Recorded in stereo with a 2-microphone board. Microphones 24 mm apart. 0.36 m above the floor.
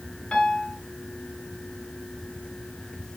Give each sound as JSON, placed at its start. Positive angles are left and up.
{"t": 0.3, "sound": "a piano", "side_deg": 35, "distance_m": 1.3}